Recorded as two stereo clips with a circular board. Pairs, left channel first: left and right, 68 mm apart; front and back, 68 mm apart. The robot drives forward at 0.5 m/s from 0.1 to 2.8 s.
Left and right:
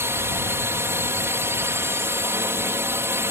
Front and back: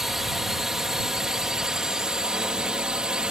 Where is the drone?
100° right; by 3.3 s 110° right.